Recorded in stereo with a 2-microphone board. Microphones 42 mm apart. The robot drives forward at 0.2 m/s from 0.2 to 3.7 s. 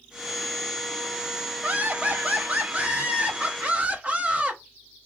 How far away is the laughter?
About 1.0 m.